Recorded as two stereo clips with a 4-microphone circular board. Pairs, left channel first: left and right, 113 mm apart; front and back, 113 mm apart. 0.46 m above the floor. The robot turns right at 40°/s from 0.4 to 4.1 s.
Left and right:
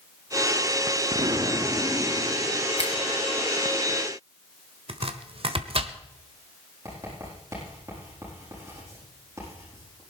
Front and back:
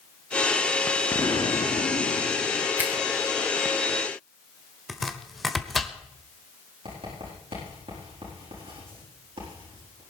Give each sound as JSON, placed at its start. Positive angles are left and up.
{"t": 1.1, "sound": "an explosion", "azimuth_deg": -55, "distance_m": 1.0}
{"t": 2.8, "sound": "a finger snap", "azimuth_deg": 105, "distance_m": 2.5}
{"t": 4.9, "sound": "chopping", "azimuth_deg": -90, "distance_m": 1.2}
{"t": 6.8, "sound": "writing", "azimuth_deg": -155, "distance_m": 8.0}